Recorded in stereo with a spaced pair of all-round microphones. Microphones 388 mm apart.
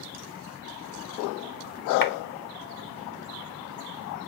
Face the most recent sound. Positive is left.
turn(degrees=60)  # may be behind; listen again after turning